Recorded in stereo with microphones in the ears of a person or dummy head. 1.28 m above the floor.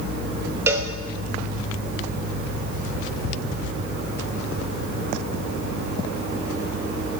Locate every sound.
0.7 s a cowbell: 10° right (ahead or behind), 1.0 m